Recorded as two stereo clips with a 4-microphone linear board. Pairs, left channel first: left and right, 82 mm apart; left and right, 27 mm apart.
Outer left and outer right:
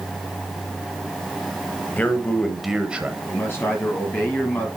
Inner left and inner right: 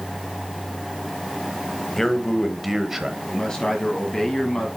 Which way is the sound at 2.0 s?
20° left (ahead or behind).